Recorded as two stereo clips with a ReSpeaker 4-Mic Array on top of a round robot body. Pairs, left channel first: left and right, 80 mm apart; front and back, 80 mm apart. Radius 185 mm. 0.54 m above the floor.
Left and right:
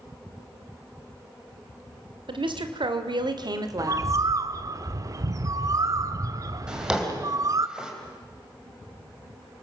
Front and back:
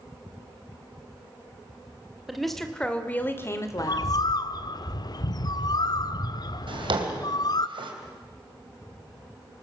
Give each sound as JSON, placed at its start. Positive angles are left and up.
{"t": 2.3, "sound": "a woman speaking", "azimuth_deg": -90, "distance_m": 2.5}
{"t": 3.8, "sound": "a bird", "azimuth_deg": -40, "distance_m": 0.6}
{"t": 6.7, "sound": "a drawer", "azimuth_deg": -170, "distance_m": 3.0}